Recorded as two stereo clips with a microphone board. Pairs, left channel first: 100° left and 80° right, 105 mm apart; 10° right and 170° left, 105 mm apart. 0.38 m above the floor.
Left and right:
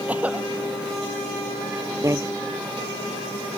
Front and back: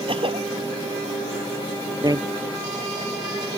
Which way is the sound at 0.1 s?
155° right.